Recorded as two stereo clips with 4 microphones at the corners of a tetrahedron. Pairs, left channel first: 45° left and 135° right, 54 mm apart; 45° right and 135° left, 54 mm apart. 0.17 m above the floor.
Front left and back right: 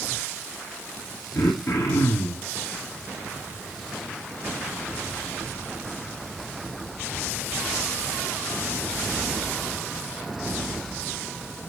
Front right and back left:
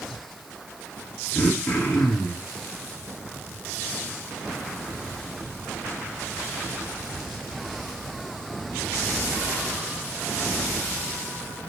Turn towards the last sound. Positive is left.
turn(degrees=25)